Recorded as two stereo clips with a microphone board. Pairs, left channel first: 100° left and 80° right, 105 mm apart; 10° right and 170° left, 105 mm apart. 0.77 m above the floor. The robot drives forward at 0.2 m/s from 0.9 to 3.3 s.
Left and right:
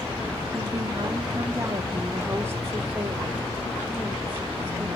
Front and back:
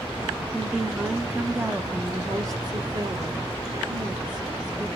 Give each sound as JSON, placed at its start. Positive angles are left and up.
{"t": 0.5, "sound": "a woman speaking", "azimuth_deg": -105, "distance_m": 0.6}